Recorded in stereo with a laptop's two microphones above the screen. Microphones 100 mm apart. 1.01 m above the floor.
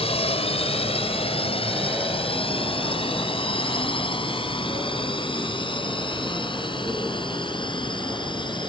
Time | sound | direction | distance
0.0 | a drone | 80° left | ?